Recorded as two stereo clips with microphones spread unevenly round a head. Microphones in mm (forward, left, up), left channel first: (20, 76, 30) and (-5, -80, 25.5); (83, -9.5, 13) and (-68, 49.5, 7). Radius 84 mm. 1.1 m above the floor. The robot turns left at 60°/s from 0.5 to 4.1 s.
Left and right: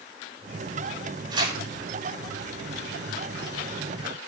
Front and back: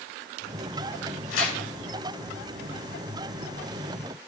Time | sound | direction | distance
1.3 | tearing paper | 35° right | 6 m